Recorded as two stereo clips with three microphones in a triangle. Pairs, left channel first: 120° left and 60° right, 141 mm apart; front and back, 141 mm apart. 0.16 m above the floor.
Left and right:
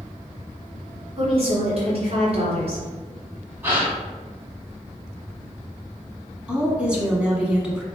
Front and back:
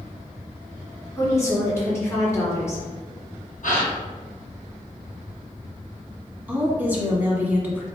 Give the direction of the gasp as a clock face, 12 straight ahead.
12 o'clock.